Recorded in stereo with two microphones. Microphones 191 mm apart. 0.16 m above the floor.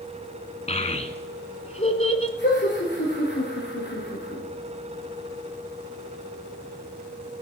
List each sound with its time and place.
0.7 s a child speaking: 35° left (ahead or behind), 1.1 m
2.4 s laughter: 70° left (ahead or behind), 4 m